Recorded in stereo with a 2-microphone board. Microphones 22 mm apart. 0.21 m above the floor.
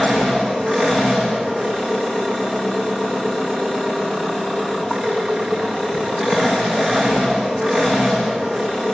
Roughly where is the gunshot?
I don't hear a gunshot.